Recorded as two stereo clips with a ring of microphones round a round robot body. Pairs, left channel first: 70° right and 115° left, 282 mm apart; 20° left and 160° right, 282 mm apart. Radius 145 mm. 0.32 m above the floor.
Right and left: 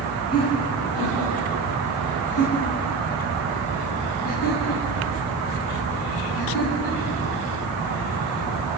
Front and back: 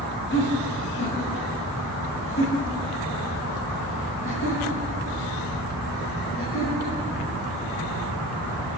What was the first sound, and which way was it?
Laughter, 25° right.